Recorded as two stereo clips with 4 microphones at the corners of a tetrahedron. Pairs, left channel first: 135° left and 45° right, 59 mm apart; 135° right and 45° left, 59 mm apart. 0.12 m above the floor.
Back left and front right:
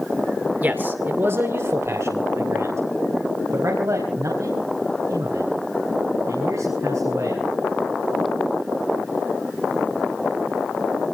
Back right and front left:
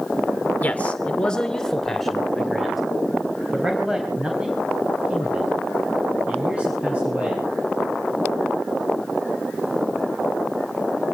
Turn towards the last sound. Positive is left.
turn(degrees=-20)